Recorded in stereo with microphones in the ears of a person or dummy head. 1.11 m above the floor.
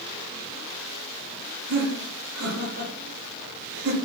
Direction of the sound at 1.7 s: 45° right (ahead or behind).